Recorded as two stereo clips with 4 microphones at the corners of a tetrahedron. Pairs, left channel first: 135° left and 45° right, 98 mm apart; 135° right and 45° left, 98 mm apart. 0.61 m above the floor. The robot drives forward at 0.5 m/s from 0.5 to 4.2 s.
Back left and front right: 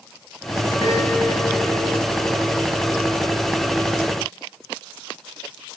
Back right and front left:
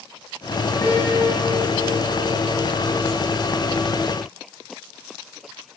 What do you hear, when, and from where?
0.8 s a piano: 165° left, 4 m